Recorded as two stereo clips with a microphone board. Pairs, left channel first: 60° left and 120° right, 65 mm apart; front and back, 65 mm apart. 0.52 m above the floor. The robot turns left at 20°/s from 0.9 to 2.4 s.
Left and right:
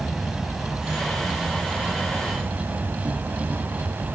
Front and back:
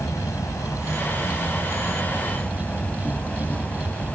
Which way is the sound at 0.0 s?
35° right.